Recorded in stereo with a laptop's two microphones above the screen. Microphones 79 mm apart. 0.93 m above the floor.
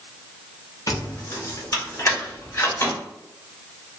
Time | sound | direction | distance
0.9 | keys jangling | 45° left (ahead or behind) | 0.9 m